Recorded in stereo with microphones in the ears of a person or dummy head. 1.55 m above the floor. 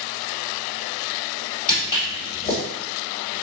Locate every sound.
1.7 s footsteps: 30° left (ahead or behind), 1.9 m